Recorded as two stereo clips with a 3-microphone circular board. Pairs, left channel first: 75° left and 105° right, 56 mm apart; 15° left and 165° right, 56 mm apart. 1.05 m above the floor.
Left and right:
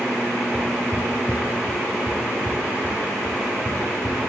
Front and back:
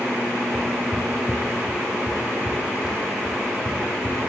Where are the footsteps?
25° left, 4 m; by 4.3 s 20° left, 6 m.